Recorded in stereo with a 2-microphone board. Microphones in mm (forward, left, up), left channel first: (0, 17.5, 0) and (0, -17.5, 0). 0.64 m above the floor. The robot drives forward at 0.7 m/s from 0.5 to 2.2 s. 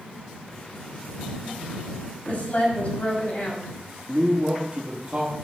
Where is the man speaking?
25° right (ahead or behind), 1.0 m.